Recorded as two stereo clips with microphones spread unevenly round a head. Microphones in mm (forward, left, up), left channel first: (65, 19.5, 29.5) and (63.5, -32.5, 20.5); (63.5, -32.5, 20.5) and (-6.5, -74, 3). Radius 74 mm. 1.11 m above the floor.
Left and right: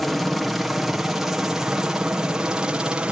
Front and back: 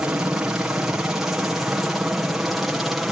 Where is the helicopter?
155° right; by 3.1 s 85° right.